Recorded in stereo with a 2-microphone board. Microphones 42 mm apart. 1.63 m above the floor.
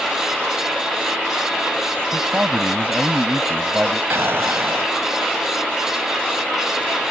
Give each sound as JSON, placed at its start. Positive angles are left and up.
{"t": 2.1, "sound": "a man speaking", "side_deg": -40}
{"t": 4.1, "sound": "an explosion", "side_deg": -70}